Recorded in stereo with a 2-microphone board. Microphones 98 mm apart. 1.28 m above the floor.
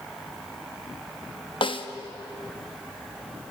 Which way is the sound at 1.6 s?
55° left (ahead or behind).